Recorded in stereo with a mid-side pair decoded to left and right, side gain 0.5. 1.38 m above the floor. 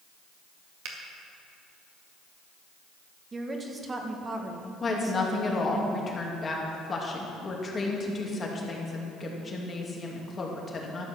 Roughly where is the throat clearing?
I don't hear throat clearing.